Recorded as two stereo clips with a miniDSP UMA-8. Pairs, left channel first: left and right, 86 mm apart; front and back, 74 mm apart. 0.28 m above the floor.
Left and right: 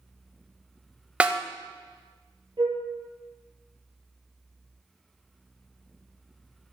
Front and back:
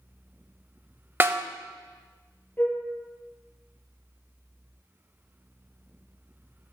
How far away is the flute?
About 2 m.